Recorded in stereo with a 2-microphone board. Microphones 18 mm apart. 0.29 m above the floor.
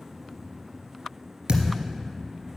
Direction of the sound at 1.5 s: 55° right (ahead or behind).